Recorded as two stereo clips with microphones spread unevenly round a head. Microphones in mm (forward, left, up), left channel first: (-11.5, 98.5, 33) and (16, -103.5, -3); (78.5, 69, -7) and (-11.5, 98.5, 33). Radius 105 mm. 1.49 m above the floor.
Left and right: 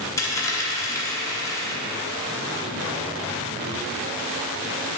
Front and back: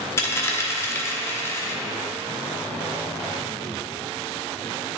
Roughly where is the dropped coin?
Ahead left.